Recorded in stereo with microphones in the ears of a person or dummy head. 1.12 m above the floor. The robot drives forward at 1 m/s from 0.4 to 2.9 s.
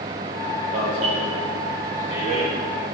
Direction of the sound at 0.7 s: 50° right (ahead or behind).